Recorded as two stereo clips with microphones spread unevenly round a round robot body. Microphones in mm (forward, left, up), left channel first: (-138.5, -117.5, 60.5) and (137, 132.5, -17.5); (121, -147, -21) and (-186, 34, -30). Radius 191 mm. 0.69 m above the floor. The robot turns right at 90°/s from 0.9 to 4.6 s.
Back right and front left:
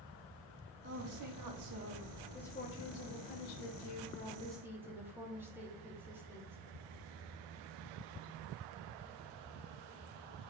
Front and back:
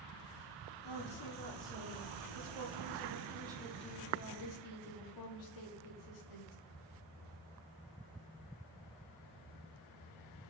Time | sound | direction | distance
0.8 | a woman speaking | 5° right | 1.0 m